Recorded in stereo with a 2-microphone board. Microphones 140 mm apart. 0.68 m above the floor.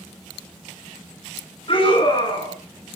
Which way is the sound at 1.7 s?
40° left (ahead or behind).